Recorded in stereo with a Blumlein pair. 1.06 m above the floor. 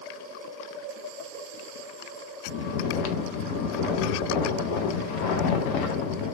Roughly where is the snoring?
Ahead left.